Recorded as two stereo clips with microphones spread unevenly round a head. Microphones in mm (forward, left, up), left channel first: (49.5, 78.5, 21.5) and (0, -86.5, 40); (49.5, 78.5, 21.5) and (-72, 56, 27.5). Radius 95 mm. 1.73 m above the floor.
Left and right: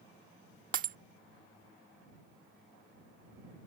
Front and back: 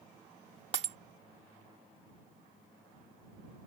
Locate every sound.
0.7 s breaking glass: 135° right